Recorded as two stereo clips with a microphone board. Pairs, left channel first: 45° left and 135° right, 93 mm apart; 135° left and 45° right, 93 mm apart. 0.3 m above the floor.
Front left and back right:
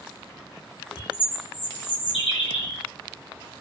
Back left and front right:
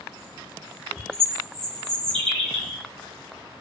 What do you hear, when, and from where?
1.0 s a bird: 50° left, 1.0 m